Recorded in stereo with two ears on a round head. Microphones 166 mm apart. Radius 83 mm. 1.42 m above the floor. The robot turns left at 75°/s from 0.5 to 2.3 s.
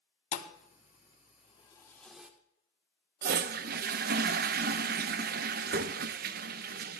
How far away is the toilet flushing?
About 0.5 m.